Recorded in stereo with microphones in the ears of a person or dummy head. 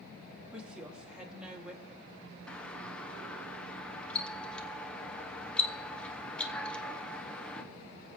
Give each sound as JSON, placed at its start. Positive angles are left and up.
{"t": 0.5, "sound": "a woman speaking", "side_deg": -5, "distance_m": 2.0}
{"t": 2.5, "sound": "a doorbell", "side_deg": 5, "distance_m": 0.8}